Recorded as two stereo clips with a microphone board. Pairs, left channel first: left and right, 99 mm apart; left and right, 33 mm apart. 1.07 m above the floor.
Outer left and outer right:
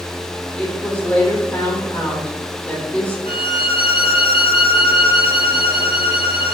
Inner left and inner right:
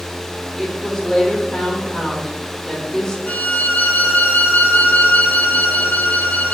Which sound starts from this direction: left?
A violin, at 3.3 s.